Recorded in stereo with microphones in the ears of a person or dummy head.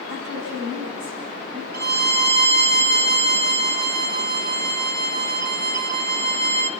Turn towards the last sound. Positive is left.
turn(degrees=-60)  # may be behind; listen again after turning